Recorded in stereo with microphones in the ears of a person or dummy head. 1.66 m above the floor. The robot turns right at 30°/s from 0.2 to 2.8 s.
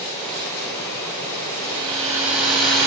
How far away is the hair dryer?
About 9 m.